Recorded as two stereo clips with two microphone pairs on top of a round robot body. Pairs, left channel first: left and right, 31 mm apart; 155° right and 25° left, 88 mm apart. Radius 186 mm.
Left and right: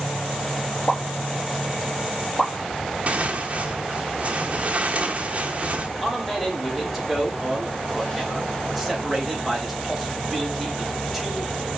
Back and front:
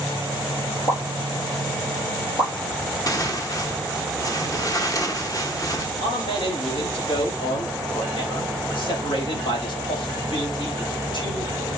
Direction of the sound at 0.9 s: 160° left.